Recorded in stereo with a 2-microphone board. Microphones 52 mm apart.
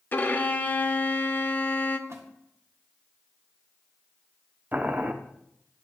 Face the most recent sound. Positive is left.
turn(degrees=-30)  # may be behind; listen again after turning